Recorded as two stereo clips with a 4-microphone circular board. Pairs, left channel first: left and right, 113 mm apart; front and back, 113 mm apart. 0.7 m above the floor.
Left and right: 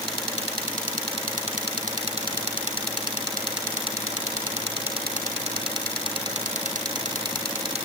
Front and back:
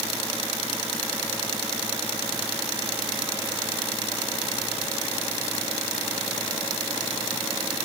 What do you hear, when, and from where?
Only background noise.